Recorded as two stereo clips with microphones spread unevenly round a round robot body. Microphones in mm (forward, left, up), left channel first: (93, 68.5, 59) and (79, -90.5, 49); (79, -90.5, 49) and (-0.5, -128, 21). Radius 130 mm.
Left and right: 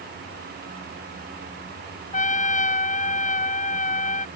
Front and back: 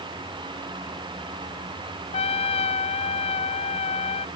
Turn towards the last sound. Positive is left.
turn(degrees=45)